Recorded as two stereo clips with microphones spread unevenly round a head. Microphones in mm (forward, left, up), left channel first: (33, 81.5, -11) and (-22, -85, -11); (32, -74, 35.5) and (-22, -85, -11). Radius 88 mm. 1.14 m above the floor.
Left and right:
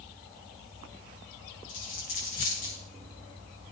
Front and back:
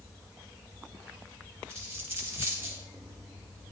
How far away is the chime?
I don't hear a chime.